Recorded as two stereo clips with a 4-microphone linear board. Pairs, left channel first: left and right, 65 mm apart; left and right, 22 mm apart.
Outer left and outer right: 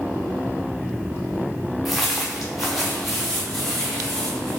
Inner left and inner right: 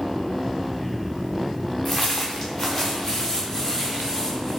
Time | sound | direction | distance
1.9 | footsteps | centre (ahead or behind) | 1.0 m